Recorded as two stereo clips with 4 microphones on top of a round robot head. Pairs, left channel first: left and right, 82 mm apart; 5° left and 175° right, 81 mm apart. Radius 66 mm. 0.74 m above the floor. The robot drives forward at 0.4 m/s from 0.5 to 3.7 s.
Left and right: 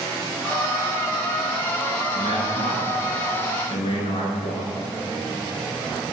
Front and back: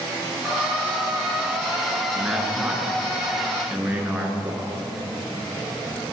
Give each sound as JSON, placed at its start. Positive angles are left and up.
{"t": 2.1, "sound": "a man speaking", "azimuth_deg": 105, "distance_m": 9.0}